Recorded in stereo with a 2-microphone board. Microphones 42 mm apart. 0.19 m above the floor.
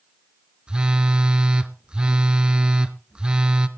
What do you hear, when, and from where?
0.7 s a phone buzzing: 25° right (ahead or behind), 0.8 m